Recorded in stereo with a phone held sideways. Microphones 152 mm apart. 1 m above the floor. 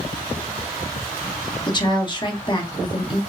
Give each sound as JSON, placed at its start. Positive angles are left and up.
{"t": 1.7, "sound": "a woman speaking", "side_deg": 30, "distance_m": 1.4}